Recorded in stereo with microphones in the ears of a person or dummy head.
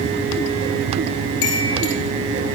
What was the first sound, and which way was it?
A chime, 80° left.